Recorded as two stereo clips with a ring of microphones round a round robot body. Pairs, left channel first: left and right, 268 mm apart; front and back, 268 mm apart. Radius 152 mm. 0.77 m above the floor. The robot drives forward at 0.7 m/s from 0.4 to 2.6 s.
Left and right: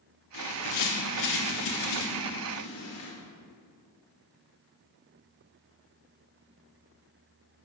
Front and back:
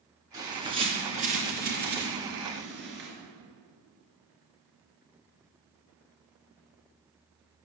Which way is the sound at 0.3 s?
105° left.